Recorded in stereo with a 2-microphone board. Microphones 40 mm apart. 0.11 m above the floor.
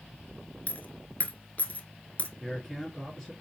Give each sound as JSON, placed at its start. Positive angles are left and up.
{"t": 0.7, "sound": "a dropped coin", "side_deg": 40, "distance_m": 0.7}
{"t": 2.4, "sound": "a man speaking", "side_deg": 10, "distance_m": 1.8}